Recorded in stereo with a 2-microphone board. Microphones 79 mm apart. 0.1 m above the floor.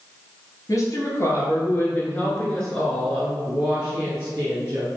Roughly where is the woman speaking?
Left.